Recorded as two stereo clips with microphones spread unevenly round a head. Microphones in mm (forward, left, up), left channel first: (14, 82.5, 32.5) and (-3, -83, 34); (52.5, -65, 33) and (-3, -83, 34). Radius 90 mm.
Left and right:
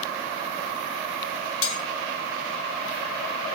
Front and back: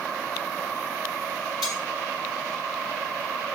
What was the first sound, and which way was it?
Cutlery clinking, 75° left.